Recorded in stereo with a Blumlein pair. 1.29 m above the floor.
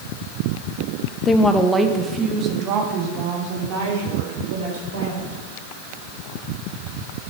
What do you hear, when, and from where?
1.2 s a woman speaking: 20° left, 0.8 m; by 5.4 s 55° right, 4.5 m